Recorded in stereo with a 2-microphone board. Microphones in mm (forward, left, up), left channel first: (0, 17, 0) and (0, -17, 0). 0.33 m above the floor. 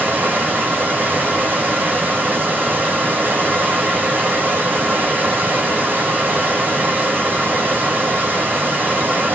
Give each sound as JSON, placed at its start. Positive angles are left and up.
{"t": 0.0, "sound": "running water", "side_deg": -75, "distance_m": 3.0}